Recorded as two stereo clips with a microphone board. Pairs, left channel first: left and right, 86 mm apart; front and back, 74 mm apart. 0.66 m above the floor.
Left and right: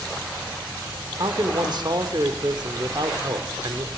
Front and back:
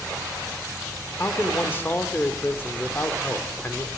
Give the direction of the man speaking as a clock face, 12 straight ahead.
2 o'clock.